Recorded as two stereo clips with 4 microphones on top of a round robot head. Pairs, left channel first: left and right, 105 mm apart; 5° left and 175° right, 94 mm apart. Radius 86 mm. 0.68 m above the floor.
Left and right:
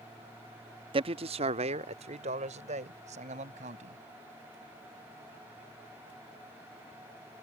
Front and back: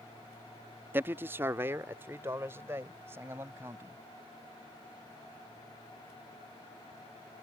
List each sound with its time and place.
0.9 s a man speaking: 110° right; by 4.0 s 105° right